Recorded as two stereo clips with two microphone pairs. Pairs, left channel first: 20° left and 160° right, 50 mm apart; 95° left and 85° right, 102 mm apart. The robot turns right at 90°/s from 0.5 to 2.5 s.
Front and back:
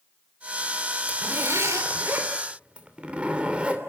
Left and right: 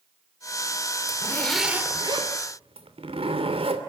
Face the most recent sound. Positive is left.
turn(degrees=-90)